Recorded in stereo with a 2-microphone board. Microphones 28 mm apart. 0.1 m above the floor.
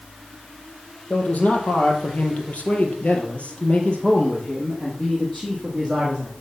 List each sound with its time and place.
1.1 s a man speaking: 55° left (ahead or behind), 3.5 m; by 6.3 s 15° left (ahead or behind), 5 m